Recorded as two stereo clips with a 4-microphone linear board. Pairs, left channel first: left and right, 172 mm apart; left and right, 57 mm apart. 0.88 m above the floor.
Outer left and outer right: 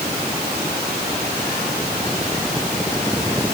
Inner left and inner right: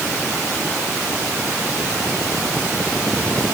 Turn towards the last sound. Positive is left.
No sound to turn to.